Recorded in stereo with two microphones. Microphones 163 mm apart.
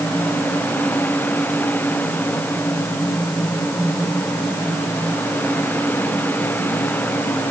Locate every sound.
Only background noise.